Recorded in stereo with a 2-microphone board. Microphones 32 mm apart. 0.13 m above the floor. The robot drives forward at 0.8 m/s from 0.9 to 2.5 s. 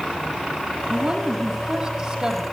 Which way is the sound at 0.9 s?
40° right (ahead or behind).